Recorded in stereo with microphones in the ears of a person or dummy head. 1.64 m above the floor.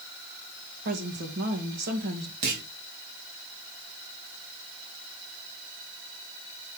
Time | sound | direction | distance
0.8 | a woman speaking | 55° right (ahead or behind) | 2 m
2.4 | a clunk | 40° right (ahead or behind) | 1.3 m